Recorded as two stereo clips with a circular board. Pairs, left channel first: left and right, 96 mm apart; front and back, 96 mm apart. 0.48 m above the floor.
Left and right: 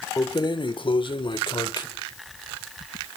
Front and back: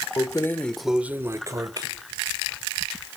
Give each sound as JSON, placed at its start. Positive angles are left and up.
{"t": 0.2, "sound": "keys jangling", "azimuth_deg": 40, "distance_m": 1.0}